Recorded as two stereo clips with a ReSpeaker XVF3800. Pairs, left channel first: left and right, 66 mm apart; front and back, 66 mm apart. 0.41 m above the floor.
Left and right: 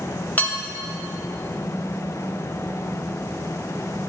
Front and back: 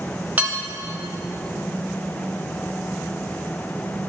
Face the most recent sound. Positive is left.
turn(degrees=130)